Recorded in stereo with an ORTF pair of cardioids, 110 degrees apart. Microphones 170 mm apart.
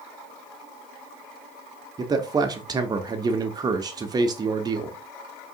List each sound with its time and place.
2.0 s a man speaking: 25° right, 0.6 m